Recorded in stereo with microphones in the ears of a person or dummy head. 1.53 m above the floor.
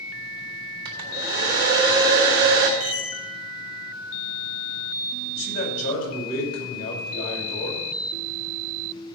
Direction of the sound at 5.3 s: 45° left (ahead or behind).